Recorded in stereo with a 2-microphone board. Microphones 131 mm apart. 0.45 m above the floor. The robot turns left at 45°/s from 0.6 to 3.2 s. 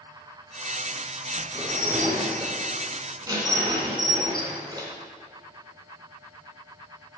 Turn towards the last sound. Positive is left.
turn(degrees=-150)